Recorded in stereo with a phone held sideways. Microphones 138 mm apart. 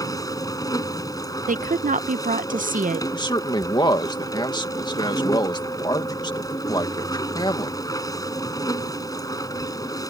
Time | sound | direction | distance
0.0 | a machine running | 25° left (ahead or behind) | ?
1.5 | a woman speaking | 80° right | ?
3.1 | a man speaking | 35° left (ahead or behind) | ?